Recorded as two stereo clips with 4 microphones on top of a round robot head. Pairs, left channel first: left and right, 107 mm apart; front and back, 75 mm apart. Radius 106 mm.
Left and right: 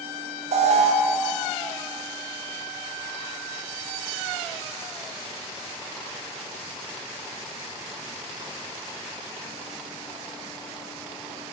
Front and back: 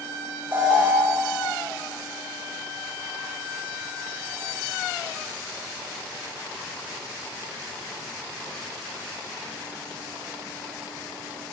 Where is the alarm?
110° right, 0.8 m.